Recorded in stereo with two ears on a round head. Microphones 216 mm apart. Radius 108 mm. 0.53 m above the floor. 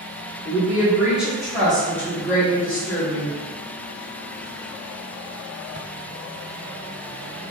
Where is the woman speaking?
10° right (ahead or behind), 1.2 m; by 3.3 s 20° left (ahead or behind), 1.2 m.